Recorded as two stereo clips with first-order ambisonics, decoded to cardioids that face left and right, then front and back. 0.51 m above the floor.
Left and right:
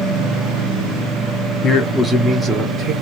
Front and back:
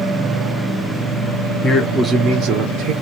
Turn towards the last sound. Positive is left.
turn(degrees=-155)